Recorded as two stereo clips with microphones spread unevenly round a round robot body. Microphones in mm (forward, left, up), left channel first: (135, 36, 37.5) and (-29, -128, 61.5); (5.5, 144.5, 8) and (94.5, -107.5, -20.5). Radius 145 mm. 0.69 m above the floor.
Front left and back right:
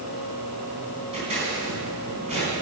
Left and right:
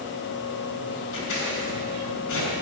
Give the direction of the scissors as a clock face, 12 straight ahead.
7 o'clock.